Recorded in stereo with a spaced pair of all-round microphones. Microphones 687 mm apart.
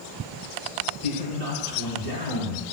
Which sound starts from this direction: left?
A man speaking, at 1.0 s.